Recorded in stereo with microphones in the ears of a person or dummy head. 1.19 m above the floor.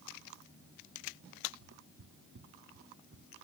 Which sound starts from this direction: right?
Footsteps, at 1.6 s.